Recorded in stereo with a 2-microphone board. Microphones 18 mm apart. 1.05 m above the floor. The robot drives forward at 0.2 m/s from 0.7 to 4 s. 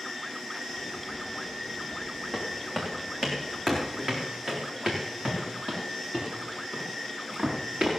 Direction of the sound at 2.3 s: 25° right (ahead or behind).